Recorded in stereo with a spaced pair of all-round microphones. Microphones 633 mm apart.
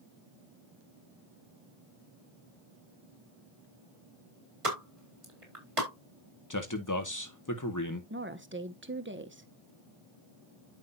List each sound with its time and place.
4.6 s a pop: 55° right (ahead or behind), 4 m
6.5 s a man speaking: 30° left (ahead or behind), 1.9 m
8.1 s a woman speaking: 20° right (ahead or behind), 1.1 m